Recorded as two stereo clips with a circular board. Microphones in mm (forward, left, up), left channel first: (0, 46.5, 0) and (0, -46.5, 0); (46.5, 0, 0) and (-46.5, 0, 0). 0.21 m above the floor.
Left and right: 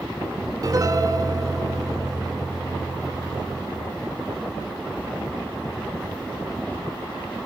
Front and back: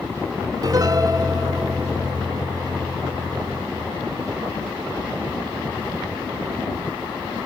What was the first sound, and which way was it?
A piano, 135° right.